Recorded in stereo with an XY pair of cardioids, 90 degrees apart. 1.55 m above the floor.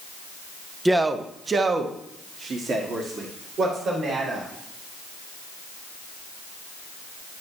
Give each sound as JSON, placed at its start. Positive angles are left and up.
{"t": 0.8, "sound": "a man speaking", "azimuth_deg": -15, "distance_m": 0.6}